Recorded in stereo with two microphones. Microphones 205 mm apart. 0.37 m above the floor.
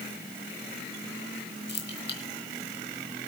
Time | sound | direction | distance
1.7 | keys jangling | 50° left (ahead or behind) | 3 m